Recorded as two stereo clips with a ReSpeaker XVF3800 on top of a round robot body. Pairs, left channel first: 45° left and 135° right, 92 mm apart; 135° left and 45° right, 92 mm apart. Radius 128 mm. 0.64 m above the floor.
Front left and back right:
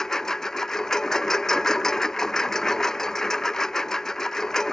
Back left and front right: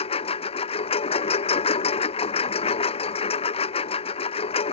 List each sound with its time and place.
0.0 s a lawn mower: 130° left